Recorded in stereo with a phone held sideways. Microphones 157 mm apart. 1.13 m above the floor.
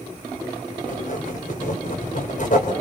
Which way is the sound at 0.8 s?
60° left (ahead or behind).